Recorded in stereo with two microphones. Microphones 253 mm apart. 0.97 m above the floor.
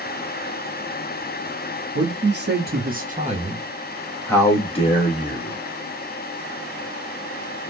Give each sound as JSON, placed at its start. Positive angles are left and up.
{"t": 1.9, "sound": "a man speaking", "side_deg": -50, "distance_m": 1.3}